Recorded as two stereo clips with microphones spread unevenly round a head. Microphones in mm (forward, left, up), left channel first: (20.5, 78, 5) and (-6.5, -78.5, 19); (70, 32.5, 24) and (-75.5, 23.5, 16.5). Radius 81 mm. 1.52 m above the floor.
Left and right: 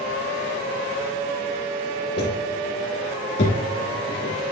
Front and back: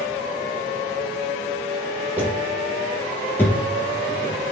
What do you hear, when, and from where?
2.2 s footsteps: 105° left, 3 m; by 4.3 s 70° left, 5 m